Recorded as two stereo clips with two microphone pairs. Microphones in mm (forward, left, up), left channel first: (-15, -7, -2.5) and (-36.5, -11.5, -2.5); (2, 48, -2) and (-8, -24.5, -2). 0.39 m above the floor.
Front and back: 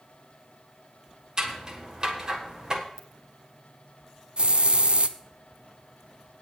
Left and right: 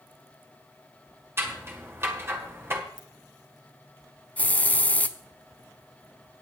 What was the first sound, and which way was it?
Scissors, 130° right.